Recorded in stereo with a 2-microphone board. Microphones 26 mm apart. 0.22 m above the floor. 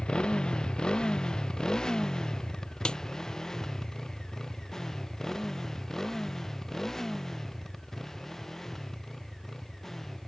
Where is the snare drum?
30° left (ahead or behind).